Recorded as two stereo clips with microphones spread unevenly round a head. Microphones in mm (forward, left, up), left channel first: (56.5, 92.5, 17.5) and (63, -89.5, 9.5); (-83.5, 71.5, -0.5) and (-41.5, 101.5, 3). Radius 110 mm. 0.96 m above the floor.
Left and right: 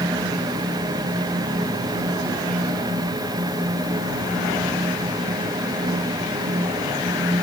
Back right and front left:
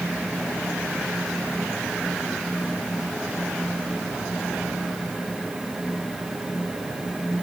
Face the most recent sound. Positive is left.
No sound to turn to.